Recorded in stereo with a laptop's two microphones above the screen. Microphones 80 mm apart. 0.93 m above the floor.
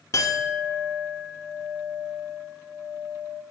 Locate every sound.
0.1 s a clink: 40° left (ahead or behind), 0.9 m